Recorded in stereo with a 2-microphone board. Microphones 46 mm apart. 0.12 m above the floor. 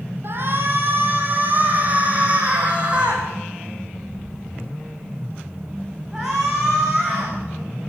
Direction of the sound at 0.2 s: 50° right (ahead or behind).